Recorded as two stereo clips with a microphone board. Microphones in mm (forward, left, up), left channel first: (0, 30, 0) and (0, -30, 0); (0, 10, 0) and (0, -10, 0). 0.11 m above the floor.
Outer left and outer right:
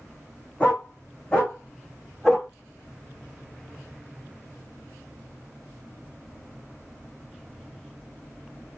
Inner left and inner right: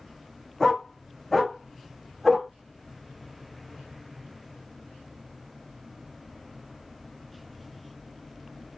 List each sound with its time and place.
0.6 s a dog barking: 25° left (ahead or behind), 3 m; by 2.5 s 5° left (ahead or behind), 3 m